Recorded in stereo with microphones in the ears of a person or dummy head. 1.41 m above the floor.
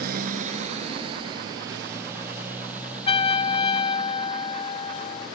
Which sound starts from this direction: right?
A motorcycle, at 0.0 s.